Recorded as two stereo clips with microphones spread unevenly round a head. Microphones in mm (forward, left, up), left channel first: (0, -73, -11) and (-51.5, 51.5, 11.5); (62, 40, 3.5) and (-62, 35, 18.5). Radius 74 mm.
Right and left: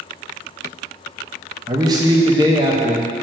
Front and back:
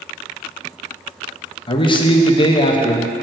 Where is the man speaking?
45° left, 0.9 m.